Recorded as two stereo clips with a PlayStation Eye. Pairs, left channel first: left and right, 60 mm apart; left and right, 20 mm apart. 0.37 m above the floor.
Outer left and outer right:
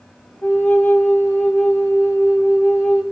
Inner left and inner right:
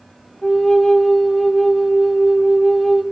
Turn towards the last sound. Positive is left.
turn(degrees=35)  # may be behind; listen again after turning